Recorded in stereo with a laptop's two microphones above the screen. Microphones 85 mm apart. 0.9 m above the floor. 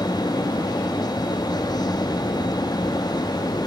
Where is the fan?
55° left (ahead or behind), 0.7 m.